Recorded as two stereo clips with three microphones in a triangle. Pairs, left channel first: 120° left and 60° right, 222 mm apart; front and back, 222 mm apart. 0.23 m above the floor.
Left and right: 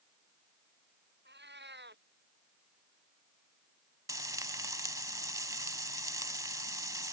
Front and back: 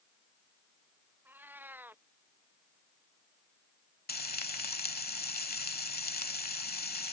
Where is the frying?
5° left.